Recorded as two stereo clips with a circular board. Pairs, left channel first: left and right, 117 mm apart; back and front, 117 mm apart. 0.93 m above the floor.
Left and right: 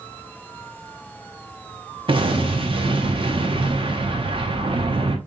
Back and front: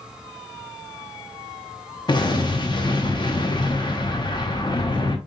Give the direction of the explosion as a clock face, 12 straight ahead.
4 o'clock.